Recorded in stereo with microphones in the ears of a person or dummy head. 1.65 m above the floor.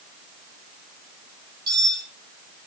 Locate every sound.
1.7 s cutlery clinking: 20° right (ahead or behind), 3 m